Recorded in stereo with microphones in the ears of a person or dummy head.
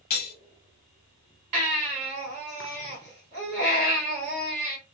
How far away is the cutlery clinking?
About 1.1 m.